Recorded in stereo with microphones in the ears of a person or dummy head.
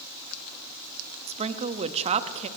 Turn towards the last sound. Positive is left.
turn(degrees=-30)  # may be behind; listen again after turning